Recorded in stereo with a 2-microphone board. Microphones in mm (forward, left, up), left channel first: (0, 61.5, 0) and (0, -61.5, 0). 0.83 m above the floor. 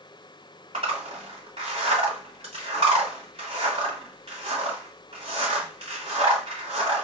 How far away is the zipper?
About 1.8 m.